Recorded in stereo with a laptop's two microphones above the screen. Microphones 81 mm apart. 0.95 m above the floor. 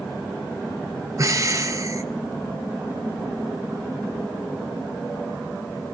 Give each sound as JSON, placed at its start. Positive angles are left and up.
{"t": 1.2, "sound": "breathing", "side_deg": -40, "distance_m": 0.8}